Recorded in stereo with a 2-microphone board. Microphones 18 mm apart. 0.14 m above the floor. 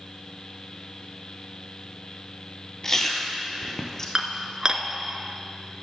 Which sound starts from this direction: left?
Chewing, at 2.8 s.